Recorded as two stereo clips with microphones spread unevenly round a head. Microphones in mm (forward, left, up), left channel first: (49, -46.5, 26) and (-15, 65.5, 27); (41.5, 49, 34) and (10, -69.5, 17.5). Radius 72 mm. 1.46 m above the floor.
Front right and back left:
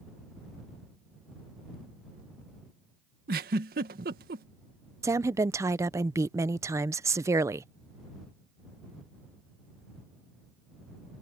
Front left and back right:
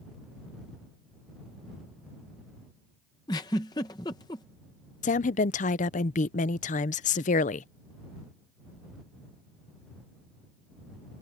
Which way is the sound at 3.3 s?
140° left.